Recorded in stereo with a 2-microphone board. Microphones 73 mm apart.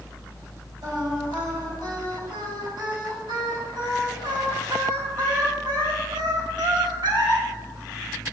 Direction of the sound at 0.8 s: 80° right.